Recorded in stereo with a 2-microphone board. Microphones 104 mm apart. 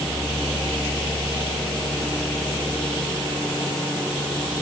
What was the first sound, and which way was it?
Only background noise.